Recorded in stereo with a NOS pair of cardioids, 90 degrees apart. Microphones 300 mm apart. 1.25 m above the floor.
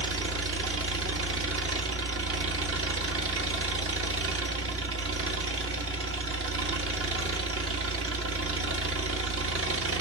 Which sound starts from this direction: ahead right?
An engine running, at 0.0 s.